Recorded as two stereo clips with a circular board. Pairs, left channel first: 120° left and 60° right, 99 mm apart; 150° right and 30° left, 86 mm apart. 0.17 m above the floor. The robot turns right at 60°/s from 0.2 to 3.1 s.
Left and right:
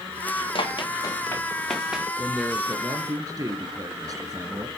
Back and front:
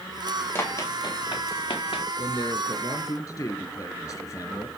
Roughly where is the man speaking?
Behind.